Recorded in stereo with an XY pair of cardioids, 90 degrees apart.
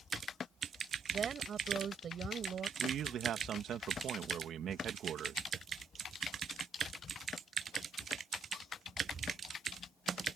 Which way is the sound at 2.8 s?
70° right.